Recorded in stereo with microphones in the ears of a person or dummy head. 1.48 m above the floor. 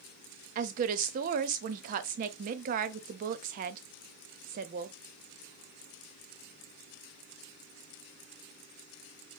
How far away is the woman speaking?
About 0.5 m.